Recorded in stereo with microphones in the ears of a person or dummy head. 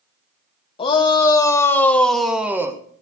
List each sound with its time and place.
0.8 s a shout: 30° left (ahead or behind), 1.8 m; by 2.8 s 15° right (ahead or behind), 1.3 m